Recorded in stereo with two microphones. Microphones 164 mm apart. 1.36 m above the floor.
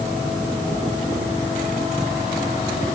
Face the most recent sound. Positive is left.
No sound to turn to.